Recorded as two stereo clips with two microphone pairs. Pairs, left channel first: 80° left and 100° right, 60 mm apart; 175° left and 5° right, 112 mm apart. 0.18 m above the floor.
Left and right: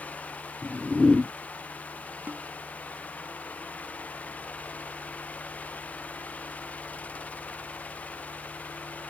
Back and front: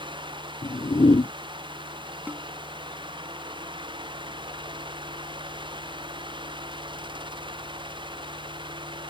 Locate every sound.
0.6 s a whoosh: 165° left
2.3 s a snare drum: 75° right